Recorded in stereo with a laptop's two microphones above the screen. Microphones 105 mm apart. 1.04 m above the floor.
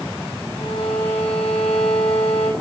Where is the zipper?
I don't hear a zipper.